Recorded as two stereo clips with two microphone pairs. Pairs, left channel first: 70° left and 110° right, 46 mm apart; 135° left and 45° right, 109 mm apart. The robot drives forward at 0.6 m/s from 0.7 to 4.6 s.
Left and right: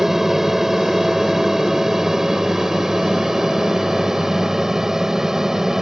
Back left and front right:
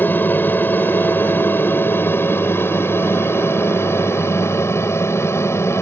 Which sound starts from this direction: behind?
An aircraft, at 0.0 s.